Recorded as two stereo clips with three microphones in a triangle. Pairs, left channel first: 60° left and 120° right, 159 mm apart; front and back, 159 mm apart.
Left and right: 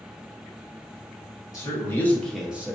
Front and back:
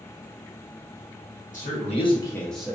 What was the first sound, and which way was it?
A man speaking, 5° right.